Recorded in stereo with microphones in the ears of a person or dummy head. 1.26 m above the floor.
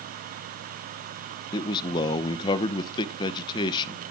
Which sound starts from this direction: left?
A man speaking, at 1.5 s.